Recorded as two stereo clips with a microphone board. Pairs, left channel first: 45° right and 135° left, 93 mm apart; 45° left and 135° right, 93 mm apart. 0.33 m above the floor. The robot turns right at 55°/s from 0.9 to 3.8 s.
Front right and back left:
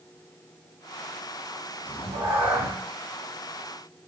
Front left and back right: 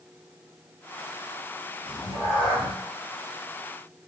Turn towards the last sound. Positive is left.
turn(degrees=-140)